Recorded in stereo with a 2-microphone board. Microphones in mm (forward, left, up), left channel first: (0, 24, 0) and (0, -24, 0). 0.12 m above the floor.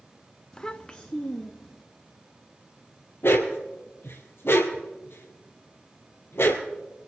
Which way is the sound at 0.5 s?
15° left (ahead or behind).